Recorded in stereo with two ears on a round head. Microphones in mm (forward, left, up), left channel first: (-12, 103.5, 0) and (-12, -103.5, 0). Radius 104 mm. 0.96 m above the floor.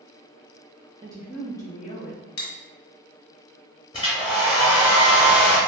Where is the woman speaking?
20° right (ahead or behind), 0.5 m; by 2.3 s 45° left (ahead or behind), 0.7 m.